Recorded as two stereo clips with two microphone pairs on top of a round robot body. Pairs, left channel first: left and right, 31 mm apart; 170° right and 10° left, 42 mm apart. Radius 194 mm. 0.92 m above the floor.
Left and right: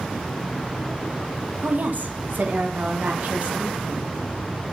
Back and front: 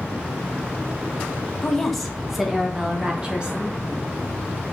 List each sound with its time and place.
1.6 s a woman speaking: 95° right, 1.7 m; by 3.8 s 55° right, 2.5 m